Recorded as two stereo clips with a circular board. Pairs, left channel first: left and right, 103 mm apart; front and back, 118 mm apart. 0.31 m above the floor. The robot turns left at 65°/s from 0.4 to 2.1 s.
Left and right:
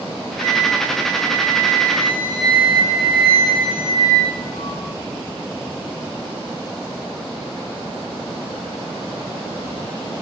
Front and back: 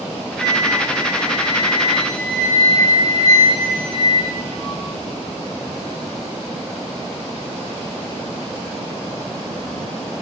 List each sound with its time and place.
0.4 s a flute: 100° right, 2 m; by 4.8 s 145° left, 2 m